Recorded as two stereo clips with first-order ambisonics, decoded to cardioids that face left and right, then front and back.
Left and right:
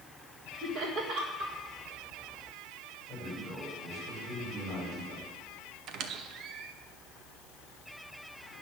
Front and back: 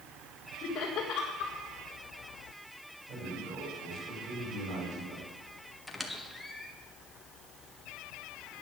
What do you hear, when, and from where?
0.6 s laughter: 55° right, 1.7 m
3.1 s a man speaking: 150° right, 5.5 m
5.9 s a squeak: 85° right, 0.8 m